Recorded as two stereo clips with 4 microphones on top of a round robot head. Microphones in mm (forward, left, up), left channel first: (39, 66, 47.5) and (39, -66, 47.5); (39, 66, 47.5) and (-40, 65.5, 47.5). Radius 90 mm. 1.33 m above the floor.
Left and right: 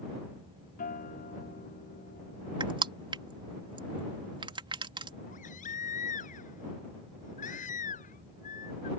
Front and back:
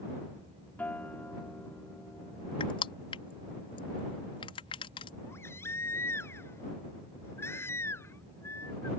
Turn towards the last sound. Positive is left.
turn(degrees=60)